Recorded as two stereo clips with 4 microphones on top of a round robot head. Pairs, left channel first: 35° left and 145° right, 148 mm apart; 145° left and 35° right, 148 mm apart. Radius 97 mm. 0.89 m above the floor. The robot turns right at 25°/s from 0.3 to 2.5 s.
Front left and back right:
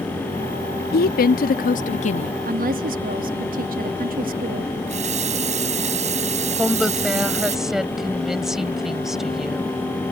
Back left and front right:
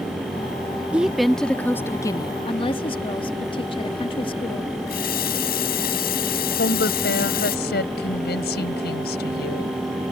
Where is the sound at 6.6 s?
130° left.